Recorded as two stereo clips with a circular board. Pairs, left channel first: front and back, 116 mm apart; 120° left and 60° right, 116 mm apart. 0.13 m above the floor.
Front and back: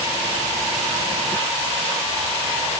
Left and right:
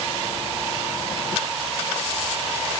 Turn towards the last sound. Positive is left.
No sound to turn to.